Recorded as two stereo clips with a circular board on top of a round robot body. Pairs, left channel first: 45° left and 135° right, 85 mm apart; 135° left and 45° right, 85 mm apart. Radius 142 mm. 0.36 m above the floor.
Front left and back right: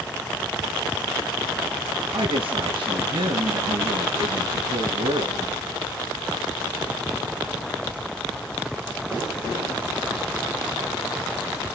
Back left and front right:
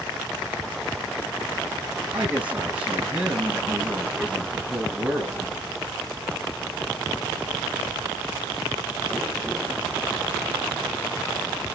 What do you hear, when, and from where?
2.1 s a woman speaking: 120° right, 8.5 m